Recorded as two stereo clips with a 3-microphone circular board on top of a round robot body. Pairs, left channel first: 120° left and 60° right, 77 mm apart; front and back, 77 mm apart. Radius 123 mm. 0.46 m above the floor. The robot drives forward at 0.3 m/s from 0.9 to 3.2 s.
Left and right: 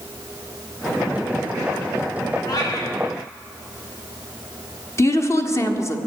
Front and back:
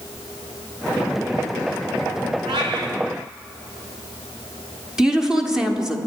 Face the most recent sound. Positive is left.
turn(degrees=100)